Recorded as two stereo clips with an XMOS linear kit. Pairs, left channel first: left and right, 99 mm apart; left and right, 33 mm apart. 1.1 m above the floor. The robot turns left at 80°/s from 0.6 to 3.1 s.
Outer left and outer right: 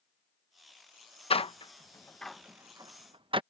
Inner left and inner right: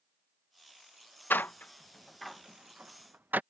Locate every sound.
1.3 s a door slam: 80° left; by 3.4 s 60° right (ahead or behind)